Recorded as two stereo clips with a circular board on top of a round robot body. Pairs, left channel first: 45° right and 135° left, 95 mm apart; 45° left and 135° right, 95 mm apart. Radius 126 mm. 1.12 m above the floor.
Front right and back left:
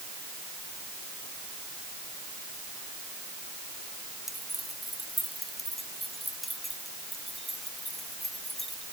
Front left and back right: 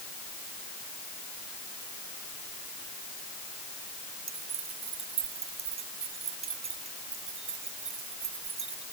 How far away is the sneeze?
No sneeze in this recording.